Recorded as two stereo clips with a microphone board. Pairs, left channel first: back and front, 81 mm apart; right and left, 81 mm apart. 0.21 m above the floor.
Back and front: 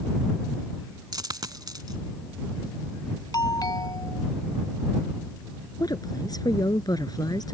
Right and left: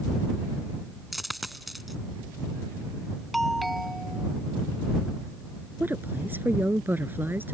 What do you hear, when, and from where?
1.1 s a dropped coin: straight ahead
3.3 s a doorbell: straight behind
5.8 s a woman speaking: 150° left